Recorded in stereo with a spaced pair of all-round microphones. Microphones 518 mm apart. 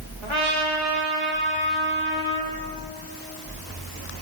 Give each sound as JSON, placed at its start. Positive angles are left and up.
{"t": 0.2, "sound": "a trumpet", "side_deg": -65, "distance_m": 1.8}